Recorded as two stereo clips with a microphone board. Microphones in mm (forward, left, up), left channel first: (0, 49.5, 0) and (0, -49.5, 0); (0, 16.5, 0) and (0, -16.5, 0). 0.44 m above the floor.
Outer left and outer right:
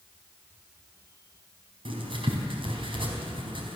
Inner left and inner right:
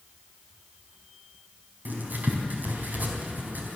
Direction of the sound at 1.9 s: 60° right (ahead or behind).